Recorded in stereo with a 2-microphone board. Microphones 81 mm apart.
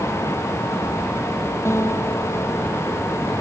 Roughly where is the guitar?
Left.